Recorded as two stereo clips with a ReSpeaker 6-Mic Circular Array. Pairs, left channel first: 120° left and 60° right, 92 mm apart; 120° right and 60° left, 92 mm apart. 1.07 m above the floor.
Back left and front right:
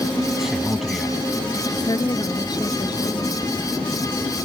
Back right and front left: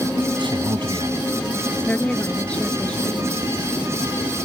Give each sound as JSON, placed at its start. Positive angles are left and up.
{"t": 0.4, "sound": "a man speaking", "azimuth_deg": 25}
{"t": 1.7, "sound": "a woman speaking", "azimuth_deg": 160}